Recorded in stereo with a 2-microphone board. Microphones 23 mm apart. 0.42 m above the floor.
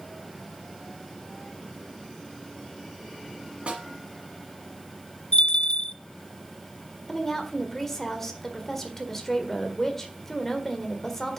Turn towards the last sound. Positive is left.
turn(degrees=15)  # may be behind; listen again after turning